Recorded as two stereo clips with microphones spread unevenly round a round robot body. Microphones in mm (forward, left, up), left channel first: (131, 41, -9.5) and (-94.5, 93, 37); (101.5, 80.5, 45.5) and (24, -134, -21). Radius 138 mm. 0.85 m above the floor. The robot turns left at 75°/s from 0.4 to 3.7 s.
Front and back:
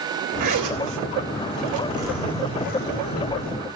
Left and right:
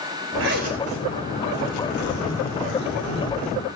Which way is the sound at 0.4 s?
150° right.